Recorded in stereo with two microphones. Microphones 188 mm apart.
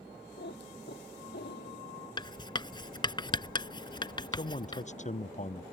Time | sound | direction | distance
0.4 | a cat meowing | 65° left (ahead or behind) | ?
2.2 | writing | 25° left (ahead or behind) | ?
4.3 | a man speaking | 40° left (ahead or behind) | ?